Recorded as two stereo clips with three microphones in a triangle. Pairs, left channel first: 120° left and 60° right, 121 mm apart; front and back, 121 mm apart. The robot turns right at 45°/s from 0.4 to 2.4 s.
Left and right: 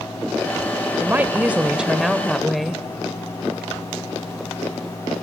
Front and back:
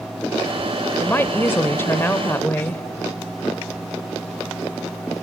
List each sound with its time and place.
1.0 s a woman speaking: 30° right, 0.9 m; by 2.8 s 35° left, 0.9 m